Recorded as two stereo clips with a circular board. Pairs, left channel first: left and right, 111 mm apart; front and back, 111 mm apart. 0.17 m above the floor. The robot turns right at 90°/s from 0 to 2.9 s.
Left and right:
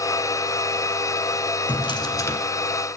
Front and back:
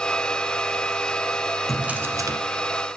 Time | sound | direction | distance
1.7 | a drawer | 90° left | 1.0 m